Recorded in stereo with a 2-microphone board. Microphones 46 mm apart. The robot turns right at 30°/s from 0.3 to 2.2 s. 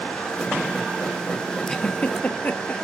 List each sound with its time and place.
1.7 s a giggle: 15° left (ahead or behind), 1.1 m; by 2.7 s 30° left (ahead or behind), 1.1 m